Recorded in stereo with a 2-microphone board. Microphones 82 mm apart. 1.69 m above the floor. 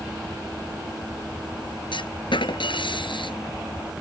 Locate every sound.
1.9 s a clunk: 80° left